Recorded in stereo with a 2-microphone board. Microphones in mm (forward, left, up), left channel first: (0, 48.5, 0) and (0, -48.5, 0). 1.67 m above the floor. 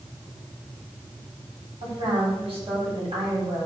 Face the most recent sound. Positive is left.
turn(degrees=-85)